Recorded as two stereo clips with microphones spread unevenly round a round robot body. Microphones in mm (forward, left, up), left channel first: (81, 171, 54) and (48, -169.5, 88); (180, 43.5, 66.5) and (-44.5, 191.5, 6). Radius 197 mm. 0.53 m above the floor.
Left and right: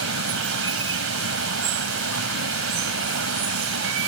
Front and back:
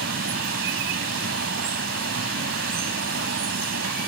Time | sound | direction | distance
0.0 | running water | 150° right | ?